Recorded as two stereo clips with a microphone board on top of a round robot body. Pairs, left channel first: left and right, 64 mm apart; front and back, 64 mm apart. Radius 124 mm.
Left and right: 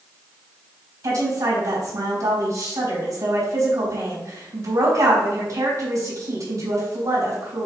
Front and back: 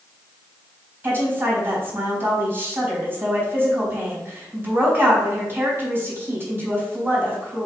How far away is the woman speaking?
About 4 m.